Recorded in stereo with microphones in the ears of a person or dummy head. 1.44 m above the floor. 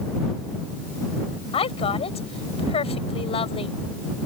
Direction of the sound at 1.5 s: 35° left (ahead or behind).